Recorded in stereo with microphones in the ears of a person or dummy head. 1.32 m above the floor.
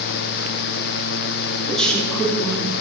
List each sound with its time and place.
1.7 s a woman speaking: centre (ahead or behind), 3 m; by 2.7 s 5° left (ahead or behind), 3.5 m